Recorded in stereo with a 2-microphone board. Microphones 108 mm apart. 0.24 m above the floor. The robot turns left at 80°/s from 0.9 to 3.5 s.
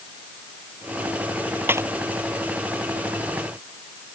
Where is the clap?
20° right (ahead or behind); by 1.9 s 35° right (ahead or behind).